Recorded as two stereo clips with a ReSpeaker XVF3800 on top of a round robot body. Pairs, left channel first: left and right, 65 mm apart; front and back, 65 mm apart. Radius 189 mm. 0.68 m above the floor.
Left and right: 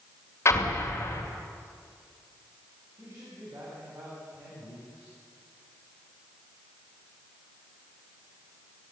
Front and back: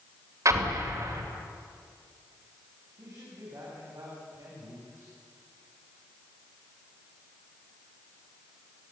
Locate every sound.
0.5 s an explosion: 140° left, 2.5 m
3.0 s a man speaking: 135° right, 7 m